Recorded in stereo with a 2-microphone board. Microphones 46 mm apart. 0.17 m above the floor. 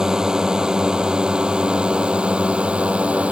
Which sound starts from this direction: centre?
A drone, at 0.0 s.